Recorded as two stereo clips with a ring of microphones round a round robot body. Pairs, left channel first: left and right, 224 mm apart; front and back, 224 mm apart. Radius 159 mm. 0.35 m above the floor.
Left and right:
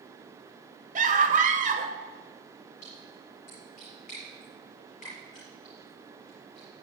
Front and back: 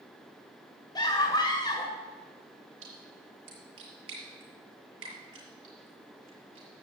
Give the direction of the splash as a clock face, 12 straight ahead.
7 o'clock.